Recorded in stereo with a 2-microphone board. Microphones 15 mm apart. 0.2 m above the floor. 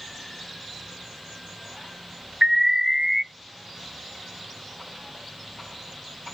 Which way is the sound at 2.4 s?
45° right (ahead or behind).